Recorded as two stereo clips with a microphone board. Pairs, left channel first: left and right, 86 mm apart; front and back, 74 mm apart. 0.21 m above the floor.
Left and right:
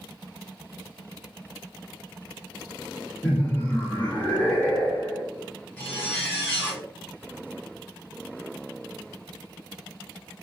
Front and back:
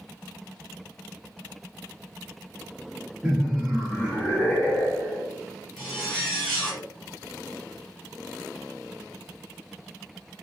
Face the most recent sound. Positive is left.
turn(degrees=75)